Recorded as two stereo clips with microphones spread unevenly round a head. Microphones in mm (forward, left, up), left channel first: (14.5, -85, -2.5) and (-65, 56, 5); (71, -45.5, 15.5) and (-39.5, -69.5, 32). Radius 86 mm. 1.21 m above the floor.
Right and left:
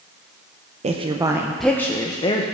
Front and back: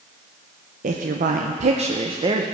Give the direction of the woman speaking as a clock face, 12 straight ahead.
6 o'clock.